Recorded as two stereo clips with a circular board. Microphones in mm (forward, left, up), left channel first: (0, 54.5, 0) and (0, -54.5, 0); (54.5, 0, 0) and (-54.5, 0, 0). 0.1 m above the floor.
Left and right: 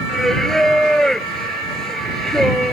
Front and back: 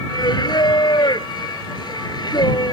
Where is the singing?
5° left.